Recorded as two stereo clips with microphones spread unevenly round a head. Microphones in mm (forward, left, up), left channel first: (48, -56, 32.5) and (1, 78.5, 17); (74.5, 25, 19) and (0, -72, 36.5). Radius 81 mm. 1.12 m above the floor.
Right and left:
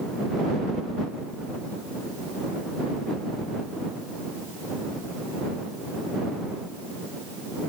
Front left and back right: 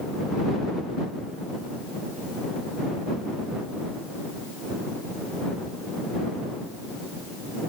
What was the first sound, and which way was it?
Only background noise.